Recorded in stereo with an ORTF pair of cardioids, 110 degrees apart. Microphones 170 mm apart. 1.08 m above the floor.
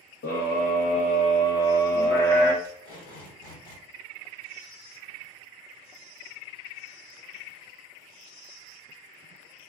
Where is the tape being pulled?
65° left, 1.5 m.